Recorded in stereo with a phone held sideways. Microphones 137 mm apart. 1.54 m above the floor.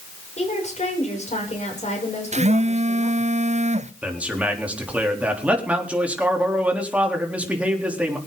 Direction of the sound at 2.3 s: 55° right (ahead or behind).